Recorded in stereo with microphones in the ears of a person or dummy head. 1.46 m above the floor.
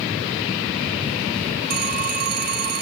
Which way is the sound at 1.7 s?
50° right (ahead or behind).